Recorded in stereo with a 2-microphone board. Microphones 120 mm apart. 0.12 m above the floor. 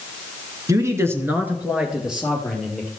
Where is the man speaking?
25° right (ahead or behind), 1.4 m; by 2.9 s centre (ahead or behind), 3 m.